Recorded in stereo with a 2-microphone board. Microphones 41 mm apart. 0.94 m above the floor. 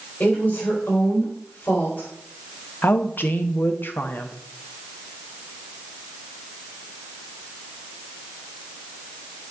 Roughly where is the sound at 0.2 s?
Left.